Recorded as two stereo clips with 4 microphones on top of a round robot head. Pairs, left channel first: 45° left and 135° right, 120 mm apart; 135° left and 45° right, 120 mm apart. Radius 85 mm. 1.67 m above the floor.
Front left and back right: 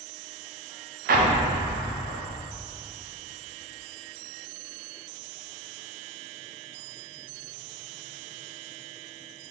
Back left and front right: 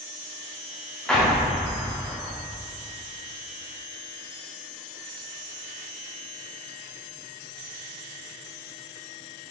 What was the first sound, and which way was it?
An explosion, 140° right.